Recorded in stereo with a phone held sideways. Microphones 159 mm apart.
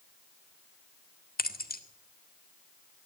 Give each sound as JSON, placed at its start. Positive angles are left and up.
{"t": 1.4, "sound": "keys jangling", "side_deg": 70, "distance_m": 1.6}